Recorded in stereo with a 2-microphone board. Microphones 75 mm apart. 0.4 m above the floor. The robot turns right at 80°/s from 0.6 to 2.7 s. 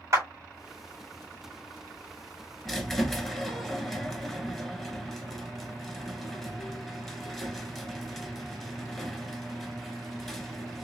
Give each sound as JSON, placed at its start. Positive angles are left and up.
{"t": 0.1, "sound": "a clap", "side_deg": -40, "distance_m": 1.8}
{"t": 2.6, "sound": "a squeak", "side_deg": 0, "distance_m": 0.9}